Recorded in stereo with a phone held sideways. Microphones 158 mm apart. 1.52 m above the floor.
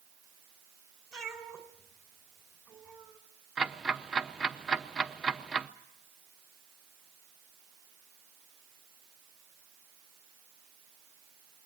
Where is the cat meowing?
5° left (ahead or behind), 2.5 m.